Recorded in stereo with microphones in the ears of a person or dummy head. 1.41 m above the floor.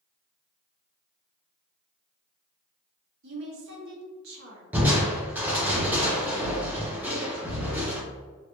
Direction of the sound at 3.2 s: 70° right (ahead or behind).